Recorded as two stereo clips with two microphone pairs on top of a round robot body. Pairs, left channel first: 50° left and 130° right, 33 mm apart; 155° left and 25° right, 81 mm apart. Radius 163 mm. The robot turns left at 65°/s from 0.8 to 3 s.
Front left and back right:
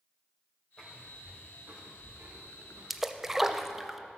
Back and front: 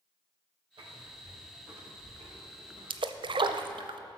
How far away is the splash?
About 0.5 m.